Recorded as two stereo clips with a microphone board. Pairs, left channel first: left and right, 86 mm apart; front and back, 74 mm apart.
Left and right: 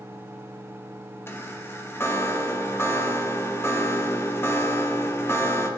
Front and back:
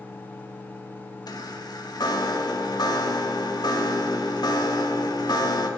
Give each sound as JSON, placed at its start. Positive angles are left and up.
{"t": 1.3, "sound": "a chime", "azimuth_deg": 30, "distance_m": 2.0}